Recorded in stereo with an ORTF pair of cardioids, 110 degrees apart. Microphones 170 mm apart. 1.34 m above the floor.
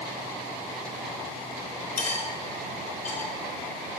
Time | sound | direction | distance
2.0 | cutlery clinking | 40° left | 3.5 m